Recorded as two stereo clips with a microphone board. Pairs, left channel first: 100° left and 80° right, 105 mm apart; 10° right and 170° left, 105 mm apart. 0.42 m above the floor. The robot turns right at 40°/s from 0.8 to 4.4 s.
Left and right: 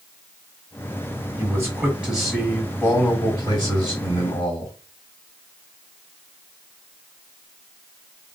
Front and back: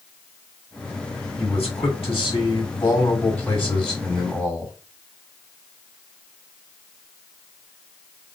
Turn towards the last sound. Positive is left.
turn(degrees=100)